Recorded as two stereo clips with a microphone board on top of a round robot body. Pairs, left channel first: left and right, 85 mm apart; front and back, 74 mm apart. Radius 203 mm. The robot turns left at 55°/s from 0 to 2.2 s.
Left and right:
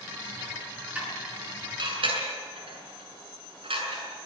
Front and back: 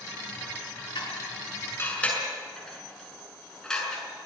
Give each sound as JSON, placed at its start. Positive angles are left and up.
{"t": 0.9, "sound": "dishes clattering", "azimuth_deg": -15, "distance_m": 6.5}